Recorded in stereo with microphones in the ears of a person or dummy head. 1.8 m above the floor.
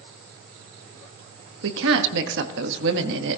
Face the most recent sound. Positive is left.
turn(degrees=-75)  # may be behind; listen again after turning